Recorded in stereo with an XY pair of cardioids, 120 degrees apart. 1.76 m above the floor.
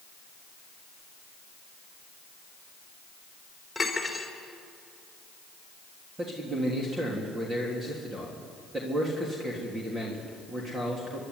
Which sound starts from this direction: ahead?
Cutlery clinking, at 3.8 s.